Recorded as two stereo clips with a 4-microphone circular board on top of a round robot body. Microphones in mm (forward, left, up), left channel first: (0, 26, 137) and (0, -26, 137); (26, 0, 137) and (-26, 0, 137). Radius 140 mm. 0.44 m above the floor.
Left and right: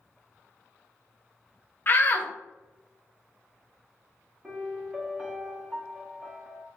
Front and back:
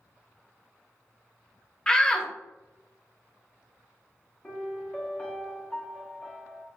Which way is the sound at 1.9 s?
70° left.